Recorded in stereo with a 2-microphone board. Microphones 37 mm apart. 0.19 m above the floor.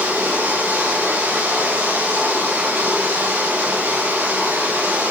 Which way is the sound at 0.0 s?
85° right.